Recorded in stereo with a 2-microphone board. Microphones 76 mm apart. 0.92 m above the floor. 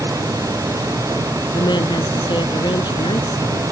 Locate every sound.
1.5 s a woman speaking: 85° left